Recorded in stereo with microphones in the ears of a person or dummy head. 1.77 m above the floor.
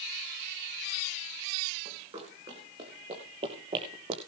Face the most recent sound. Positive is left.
turn(degrees=-30)  # may be behind; listen again after turning